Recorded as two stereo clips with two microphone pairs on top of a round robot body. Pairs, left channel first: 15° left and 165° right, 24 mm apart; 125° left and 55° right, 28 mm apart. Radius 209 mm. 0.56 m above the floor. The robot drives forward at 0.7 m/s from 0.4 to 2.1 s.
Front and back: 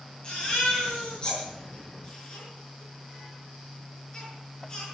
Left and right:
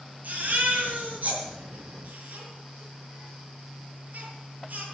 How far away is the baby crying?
About 7.5 m.